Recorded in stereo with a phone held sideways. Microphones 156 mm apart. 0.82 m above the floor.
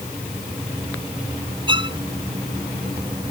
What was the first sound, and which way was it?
A violin, 30° right (ahead or behind).